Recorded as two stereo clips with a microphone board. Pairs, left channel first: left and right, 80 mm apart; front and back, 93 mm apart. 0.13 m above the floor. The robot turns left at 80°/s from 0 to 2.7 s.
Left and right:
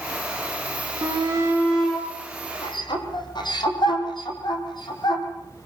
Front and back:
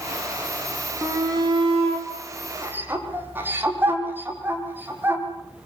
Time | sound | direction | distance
1.0 | a shout | 115° right | 6 m